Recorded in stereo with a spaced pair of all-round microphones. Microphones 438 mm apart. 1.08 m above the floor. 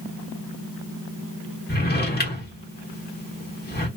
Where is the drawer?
20° left (ahead or behind), 1.1 m.